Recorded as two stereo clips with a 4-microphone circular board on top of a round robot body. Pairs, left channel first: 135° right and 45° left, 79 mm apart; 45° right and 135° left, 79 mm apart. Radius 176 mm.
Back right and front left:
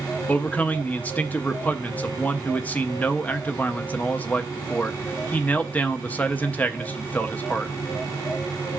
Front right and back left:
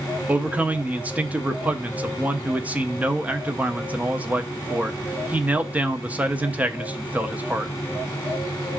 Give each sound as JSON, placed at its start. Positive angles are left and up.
{"t": 0.3, "sound": "a man speaking", "azimuth_deg": -175, "distance_m": 0.9}